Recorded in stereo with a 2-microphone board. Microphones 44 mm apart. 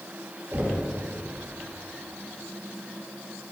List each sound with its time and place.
0.5 s knocking: 45° right (ahead or behind), 1.4 m